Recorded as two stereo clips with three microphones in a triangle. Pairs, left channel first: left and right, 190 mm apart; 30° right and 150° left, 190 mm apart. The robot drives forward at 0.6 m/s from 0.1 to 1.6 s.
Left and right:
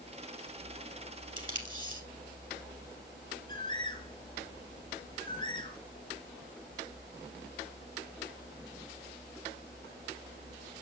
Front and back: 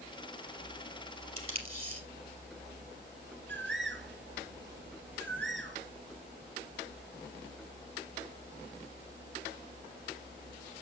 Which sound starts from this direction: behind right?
Tape being pulled, at 1.4 s.